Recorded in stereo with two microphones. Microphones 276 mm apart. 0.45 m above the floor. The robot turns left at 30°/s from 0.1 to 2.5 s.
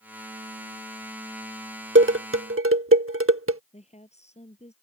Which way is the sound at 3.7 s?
25° left (ahead or behind).